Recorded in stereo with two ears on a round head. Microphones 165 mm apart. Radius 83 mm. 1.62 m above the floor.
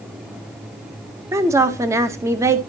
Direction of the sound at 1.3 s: 15° right (ahead or behind).